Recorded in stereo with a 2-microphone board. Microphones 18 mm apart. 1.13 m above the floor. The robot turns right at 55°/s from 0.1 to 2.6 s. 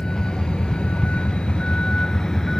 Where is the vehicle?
45° left (ahead or behind); by 2.6 s 25° left (ahead or behind).